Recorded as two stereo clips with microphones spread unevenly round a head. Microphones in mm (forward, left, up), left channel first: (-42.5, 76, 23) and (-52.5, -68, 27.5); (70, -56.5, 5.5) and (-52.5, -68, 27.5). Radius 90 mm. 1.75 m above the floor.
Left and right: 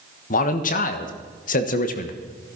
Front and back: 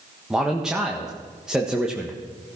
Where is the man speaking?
105° left, 1.3 m.